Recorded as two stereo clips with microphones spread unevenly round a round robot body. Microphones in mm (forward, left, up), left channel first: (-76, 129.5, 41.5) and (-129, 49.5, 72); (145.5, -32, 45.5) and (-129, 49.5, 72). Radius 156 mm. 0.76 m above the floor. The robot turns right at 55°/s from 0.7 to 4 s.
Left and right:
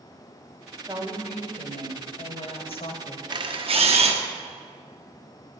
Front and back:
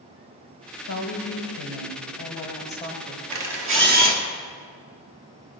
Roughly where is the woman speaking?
Ahead right.